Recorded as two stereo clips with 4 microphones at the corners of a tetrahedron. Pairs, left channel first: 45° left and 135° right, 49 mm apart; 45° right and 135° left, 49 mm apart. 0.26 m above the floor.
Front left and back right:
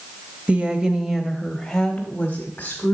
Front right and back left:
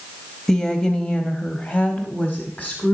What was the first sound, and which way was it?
A woman speaking, 115° right.